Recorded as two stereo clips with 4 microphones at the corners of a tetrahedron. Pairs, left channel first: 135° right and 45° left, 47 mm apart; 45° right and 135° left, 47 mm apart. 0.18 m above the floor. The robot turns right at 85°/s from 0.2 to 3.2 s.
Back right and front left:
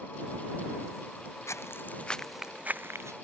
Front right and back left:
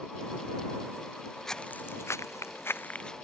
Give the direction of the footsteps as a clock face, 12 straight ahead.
4 o'clock.